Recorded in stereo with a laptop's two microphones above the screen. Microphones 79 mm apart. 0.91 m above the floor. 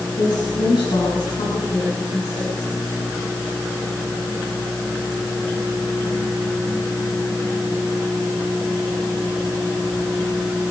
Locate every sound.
0.2 s a woman speaking: 80° left, 8.5 m